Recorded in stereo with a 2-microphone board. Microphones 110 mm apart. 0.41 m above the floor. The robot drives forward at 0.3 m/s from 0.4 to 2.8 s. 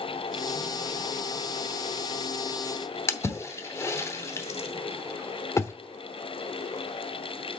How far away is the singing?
I don't hear singing.